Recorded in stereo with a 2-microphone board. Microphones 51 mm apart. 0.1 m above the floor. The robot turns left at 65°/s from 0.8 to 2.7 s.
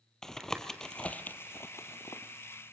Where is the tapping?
10° left (ahead or behind), 1.3 m; by 2.7 s 40° left (ahead or behind), 1.3 m.